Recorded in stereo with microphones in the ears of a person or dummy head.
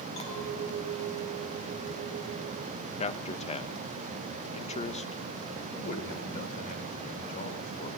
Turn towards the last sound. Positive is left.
turn(degrees=40)  # may be behind; listen again after turning